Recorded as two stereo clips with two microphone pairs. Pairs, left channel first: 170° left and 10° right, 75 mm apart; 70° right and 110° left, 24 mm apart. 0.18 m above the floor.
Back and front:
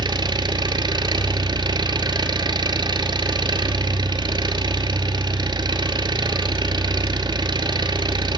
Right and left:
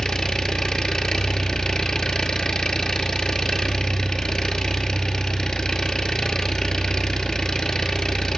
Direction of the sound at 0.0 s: 15° right.